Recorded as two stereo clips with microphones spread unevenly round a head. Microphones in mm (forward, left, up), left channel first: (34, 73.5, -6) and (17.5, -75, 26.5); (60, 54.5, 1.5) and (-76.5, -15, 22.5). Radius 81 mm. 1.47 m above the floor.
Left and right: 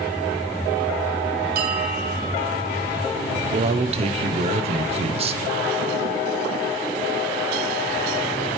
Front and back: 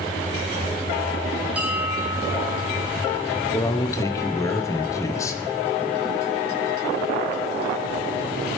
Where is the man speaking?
40° right, 0.6 m.